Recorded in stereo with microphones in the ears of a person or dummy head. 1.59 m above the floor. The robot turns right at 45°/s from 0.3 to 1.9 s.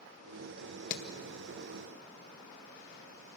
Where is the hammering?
55° left (ahead or behind), 1.9 m; by 1.0 s 60° left (ahead or behind), 1.9 m.